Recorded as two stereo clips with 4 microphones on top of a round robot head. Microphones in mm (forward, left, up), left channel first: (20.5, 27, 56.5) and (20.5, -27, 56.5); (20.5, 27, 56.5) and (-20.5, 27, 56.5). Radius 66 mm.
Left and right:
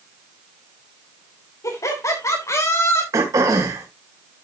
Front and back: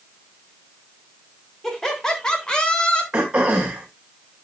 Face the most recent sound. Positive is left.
turn(degrees=-110)